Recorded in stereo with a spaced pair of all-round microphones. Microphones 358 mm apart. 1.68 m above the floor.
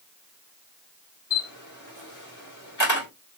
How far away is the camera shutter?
About 2.5 m.